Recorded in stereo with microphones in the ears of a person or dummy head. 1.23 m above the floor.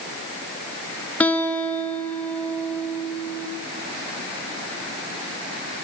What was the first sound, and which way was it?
A guitar, 10° left (ahead or behind).